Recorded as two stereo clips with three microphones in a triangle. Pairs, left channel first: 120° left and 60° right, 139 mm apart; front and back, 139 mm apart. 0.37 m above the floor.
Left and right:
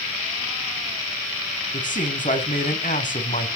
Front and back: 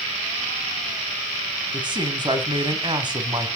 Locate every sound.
1.7 s a man speaking: 125° left, 2.5 m